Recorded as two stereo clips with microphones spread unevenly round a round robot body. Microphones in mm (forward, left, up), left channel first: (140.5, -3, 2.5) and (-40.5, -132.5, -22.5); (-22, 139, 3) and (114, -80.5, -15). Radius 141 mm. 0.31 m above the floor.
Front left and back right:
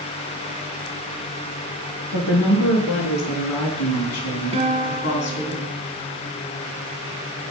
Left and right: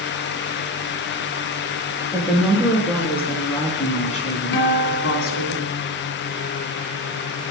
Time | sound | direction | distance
2.1 | a woman speaking | 25° left | 5 m
4.5 | a guitar | 145° left | 1.2 m